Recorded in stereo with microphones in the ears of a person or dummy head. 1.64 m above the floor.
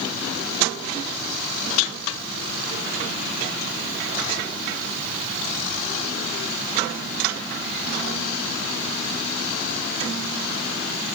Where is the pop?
No pop in this recording.